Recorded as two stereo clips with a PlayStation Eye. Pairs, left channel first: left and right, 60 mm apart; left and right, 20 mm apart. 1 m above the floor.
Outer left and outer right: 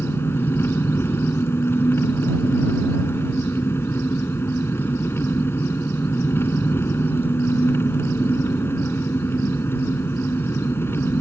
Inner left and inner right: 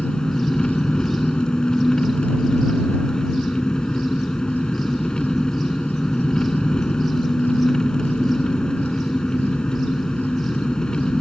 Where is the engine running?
45° left (ahead or behind).